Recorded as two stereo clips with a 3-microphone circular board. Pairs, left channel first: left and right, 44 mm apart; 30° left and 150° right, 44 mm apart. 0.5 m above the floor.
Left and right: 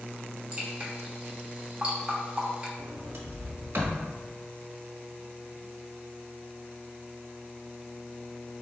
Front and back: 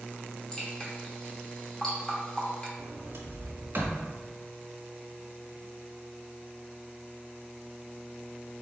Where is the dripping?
40° right, 1.2 m.